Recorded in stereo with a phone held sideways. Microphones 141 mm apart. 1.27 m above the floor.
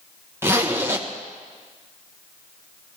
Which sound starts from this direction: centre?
A zipper, at 0.4 s.